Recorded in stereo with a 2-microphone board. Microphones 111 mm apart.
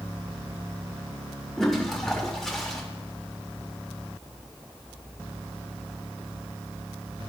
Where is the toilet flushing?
5° left (ahead or behind), 1.2 m.